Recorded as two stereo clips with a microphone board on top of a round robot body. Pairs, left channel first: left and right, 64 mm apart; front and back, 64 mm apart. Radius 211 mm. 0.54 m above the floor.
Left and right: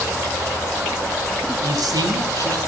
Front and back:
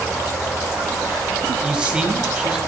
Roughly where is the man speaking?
Right.